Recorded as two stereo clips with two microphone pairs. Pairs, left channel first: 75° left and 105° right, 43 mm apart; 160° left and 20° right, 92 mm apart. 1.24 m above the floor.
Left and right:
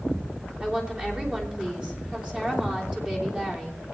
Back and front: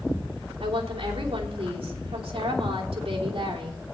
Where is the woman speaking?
40° right, 3 m.